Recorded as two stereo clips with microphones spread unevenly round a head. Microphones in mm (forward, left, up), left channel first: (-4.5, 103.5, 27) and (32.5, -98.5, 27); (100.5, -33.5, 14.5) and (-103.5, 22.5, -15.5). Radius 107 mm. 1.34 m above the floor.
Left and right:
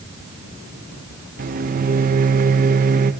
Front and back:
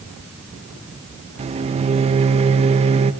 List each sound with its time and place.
1.4 s a microwave: 130° right, 0.8 m